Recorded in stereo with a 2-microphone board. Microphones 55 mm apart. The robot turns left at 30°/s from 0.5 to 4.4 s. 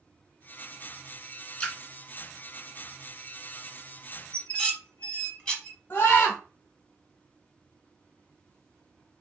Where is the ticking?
No ticking in this recording.